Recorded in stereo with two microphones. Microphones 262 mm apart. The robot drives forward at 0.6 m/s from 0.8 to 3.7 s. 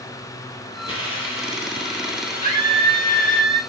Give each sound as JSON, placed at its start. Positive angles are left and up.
{"t": 0.9, "sound": "a hiss", "side_deg": 50, "distance_m": 2.0}
{"t": 2.4, "sound": "a scream", "side_deg": 25, "distance_m": 1.3}